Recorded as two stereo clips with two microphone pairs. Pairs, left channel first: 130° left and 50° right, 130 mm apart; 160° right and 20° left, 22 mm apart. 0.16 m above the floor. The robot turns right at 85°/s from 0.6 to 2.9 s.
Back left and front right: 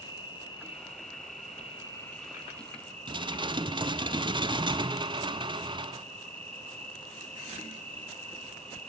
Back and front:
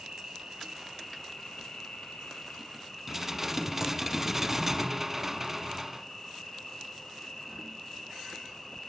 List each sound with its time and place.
0.0 s an insect: 75° left, 4.5 m; by 8.9 s 90° right, 4.5 m
3.1 s dishes clattering: 50° right, 0.9 m